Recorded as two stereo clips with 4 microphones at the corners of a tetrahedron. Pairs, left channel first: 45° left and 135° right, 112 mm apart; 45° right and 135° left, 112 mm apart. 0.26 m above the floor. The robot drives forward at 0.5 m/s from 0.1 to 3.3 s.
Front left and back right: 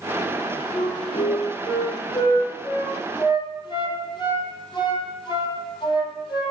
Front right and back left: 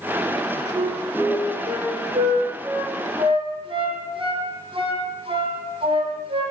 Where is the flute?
80° left, 5 m; by 6.5 s 95° left, 5 m.